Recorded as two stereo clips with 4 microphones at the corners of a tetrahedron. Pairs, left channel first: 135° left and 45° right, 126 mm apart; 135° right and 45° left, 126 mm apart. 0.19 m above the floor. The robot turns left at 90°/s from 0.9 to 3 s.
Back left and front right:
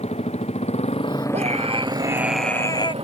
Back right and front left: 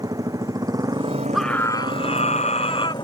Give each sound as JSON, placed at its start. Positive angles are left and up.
{"t": 0.0, "sound": "a motorcycle", "azimuth_deg": 105}
{"t": 1.3, "sound": "a scream", "azimuth_deg": -40}